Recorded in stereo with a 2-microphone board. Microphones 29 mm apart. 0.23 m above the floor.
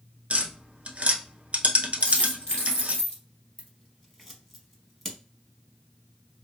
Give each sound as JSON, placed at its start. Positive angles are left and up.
{"t": 0.3, "sound": "tapping", "side_deg": -60, "distance_m": 0.7}
{"t": 2.0, "sound": "a dropped coin", "side_deg": 40, "distance_m": 1.5}
{"t": 3.6, "sound": "scissors", "side_deg": 5, "distance_m": 0.9}